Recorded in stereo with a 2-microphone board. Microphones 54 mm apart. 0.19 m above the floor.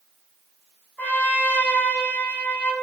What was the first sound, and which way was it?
A trumpet, 35° left (ahead or behind).